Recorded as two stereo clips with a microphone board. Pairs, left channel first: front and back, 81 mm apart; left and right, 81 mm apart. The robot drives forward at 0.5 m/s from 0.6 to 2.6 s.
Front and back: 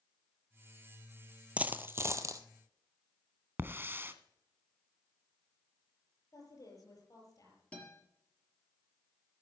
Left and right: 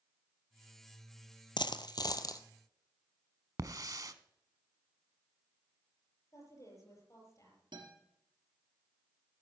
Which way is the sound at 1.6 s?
105° left.